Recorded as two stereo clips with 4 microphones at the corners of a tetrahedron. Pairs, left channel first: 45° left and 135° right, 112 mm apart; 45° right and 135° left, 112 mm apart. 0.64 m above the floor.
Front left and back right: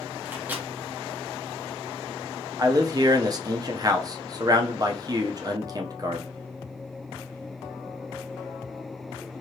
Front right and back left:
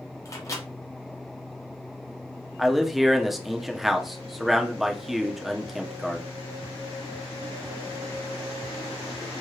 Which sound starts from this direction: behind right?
A man speaking, at 2.6 s.